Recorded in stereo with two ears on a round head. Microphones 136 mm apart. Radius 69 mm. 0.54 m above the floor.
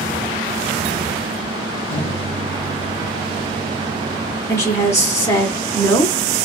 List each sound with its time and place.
1.9 s a microwave: 45° left (ahead or behind), 1.7 m
4.5 s a woman speaking: 20° left (ahead or behind), 1.3 m